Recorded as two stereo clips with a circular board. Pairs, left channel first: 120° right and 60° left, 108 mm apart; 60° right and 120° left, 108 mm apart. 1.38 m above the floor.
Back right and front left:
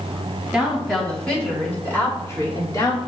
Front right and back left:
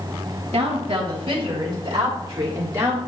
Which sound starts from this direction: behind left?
A woman speaking, at 0.5 s.